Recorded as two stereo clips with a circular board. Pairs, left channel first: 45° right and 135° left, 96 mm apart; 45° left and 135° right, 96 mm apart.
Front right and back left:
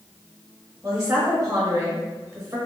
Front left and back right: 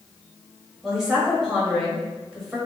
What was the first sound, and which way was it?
A woman speaking, 140° left.